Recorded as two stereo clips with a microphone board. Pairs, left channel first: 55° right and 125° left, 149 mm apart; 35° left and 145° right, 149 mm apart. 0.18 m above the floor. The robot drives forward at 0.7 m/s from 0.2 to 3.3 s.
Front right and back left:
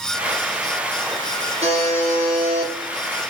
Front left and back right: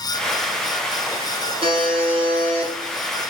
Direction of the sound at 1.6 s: 165° left.